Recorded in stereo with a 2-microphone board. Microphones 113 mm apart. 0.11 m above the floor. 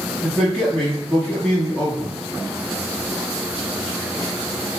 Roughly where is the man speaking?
Centre.